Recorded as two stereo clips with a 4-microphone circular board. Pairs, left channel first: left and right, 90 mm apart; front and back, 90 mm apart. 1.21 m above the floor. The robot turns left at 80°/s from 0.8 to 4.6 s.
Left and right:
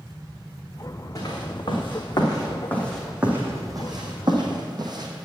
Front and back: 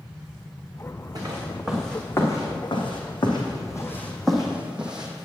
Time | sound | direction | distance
1.1 | footsteps | 135° left | 3.5 m